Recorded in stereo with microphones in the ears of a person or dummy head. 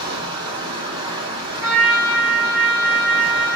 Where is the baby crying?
No baby crying in this recording.